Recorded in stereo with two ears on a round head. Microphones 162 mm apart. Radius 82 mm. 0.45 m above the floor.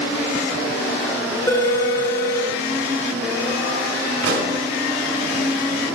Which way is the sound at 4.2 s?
70° right (ahead or behind).